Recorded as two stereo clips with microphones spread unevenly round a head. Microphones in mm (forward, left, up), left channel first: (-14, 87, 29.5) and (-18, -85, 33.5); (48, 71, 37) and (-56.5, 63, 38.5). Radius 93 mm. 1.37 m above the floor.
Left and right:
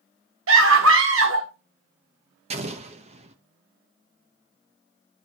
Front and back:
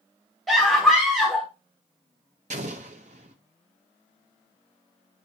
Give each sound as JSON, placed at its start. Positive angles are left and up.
{"t": 0.5, "sound": "a scream", "azimuth_deg": -85, "distance_m": 1.3}
{"t": 2.5, "sound": "an explosion", "azimuth_deg": -140, "distance_m": 0.7}